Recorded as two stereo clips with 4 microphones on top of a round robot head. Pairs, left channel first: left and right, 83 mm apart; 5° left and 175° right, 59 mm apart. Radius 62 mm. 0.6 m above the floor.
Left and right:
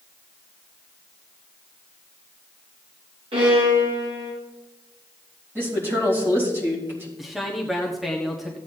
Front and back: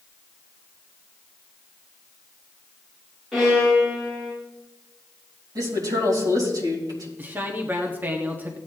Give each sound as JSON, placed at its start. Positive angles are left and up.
{"t": 3.3, "sound": "a violin", "azimuth_deg": -80, "distance_m": 6.0}
{"t": 5.5, "sound": "a woman speaking", "azimuth_deg": -155, "distance_m": 3.5}
{"t": 7.2, "sound": "a man speaking", "azimuth_deg": -175, "distance_m": 1.4}